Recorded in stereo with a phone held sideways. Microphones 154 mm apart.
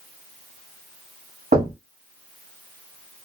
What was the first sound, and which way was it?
Knocking, 70° right (ahead or behind).